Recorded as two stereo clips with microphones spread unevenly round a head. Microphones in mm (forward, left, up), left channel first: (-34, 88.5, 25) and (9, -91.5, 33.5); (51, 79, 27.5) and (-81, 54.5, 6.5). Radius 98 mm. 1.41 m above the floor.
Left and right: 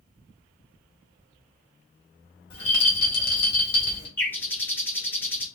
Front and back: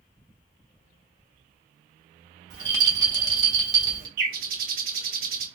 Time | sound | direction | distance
2.5 | a rattle | 145° left | 1.1 m
4.2 | a bird | 175° right | 0.9 m